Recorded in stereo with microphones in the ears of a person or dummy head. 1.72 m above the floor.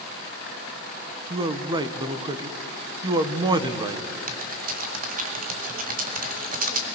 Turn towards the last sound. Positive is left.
turn(degrees=-50)  # may be behind; listen again after turning